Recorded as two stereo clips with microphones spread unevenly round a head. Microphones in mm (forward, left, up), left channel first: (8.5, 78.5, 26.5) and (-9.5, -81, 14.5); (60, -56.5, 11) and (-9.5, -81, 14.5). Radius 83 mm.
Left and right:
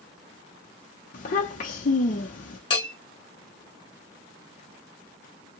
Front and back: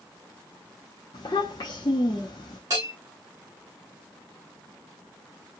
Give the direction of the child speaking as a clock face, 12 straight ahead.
10 o'clock.